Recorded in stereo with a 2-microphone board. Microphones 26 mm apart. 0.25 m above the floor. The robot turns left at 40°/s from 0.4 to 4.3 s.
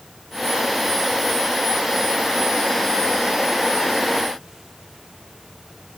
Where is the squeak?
I don't hear a squeak.